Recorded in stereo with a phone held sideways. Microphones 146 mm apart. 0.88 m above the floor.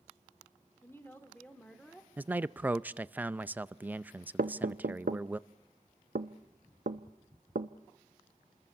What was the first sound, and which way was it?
A woman speaking, 20° left (ahead or behind).